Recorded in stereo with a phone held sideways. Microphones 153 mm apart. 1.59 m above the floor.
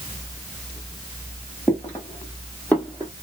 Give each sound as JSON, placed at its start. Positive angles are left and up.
{"t": 1.7, "sound": "footsteps", "side_deg": 15, "distance_m": 2.5}